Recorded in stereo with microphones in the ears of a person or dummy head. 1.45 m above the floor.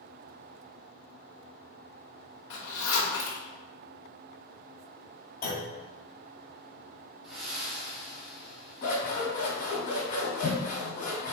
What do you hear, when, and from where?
2.5 s a zipper: 70° left (ahead or behind), 1.3 m
5.4 s a clunk: 45° left (ahead or behind), 1.6 m
7.2 s breathing: centre (ahead or behind), 1.9 m
8.8 s scissors: 40° left (ahead or behind), 1.9 m